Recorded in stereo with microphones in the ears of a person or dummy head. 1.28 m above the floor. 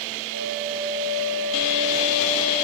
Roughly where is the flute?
Right.